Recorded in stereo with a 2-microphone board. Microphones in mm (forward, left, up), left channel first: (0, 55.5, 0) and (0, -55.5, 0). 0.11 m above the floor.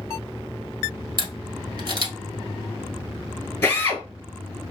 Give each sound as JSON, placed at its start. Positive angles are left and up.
{"t": 1.2, "sound": "a camera shutter", "side_deg": -45, "distance_m": 1.3}
{"t": 3.6, "sound": "a drill", "side_deg": 20, "distance_m": 1.7}